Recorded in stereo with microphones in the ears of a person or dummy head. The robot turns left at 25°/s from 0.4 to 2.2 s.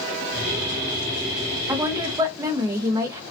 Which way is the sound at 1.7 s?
15° right (ahead or behind).